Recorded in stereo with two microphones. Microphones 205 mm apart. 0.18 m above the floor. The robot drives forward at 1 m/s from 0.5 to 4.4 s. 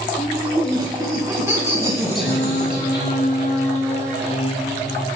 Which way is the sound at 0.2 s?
20° right (ahead or behind).